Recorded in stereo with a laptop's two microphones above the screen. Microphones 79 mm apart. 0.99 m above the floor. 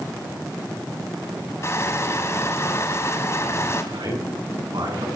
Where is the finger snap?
No finger snap in this recording.